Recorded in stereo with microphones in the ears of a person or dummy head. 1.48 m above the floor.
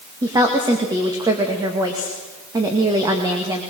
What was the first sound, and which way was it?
A woman speaking, 25° right (ahead or behind).